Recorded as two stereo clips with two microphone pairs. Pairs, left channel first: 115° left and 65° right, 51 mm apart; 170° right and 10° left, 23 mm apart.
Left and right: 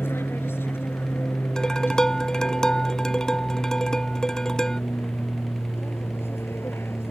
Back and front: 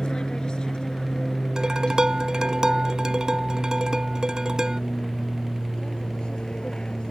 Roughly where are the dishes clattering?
Ahead left.